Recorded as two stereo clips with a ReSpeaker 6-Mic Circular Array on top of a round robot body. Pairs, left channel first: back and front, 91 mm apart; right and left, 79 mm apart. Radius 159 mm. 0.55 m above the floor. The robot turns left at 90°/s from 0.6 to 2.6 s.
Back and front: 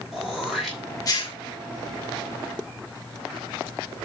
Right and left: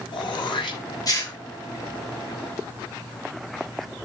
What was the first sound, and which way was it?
Throat clearing, 85° right.